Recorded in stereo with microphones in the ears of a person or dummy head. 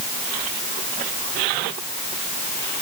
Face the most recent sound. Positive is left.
No sound to turn to.